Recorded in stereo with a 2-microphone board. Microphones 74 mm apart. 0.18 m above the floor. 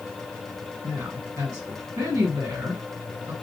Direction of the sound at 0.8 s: 40° right (ahead or behind).